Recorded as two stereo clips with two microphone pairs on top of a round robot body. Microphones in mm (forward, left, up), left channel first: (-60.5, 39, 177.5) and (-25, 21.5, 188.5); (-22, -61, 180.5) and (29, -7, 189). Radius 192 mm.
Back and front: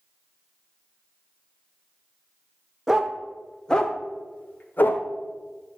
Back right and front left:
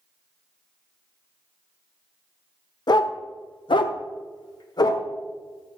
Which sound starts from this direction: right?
A dog barking, at 2.9 s.